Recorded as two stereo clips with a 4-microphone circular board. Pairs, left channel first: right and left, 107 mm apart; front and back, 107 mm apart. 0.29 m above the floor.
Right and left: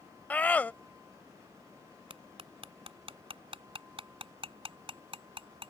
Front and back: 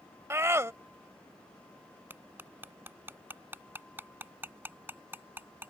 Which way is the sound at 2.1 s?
110° left.